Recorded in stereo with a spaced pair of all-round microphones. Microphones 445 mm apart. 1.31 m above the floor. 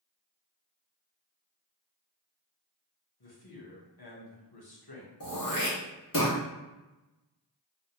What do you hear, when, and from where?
3.2 s a man speaking: 55° left (ahead or behind), 0.8 m
5.2 s throat clearing: 45° left (ahead or behind), 0.8 m